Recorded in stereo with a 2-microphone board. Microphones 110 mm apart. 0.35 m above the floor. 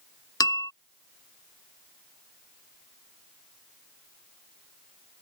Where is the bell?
35° left (ahead or behind).